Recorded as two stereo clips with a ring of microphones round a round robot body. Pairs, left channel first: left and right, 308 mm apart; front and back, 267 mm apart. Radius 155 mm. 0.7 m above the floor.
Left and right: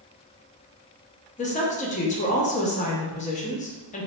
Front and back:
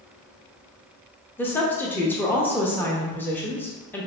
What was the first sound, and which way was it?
A woman speaking, 70° left.